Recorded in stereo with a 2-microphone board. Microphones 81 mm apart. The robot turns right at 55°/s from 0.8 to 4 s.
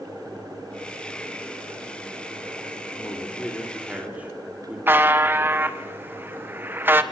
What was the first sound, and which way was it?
A man speaking, 40° left (ahead or behind).